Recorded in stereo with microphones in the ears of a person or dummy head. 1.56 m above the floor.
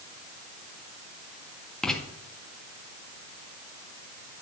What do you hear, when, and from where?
1.8 s writing: 5° left (ahead or behind), 2 m